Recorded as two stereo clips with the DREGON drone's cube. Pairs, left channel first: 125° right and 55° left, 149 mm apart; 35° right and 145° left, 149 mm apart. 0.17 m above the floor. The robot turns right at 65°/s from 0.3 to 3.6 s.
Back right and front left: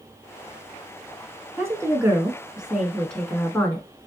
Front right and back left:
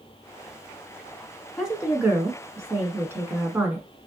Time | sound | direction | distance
1.6 | a woman speaking | 65° left | 1.0 m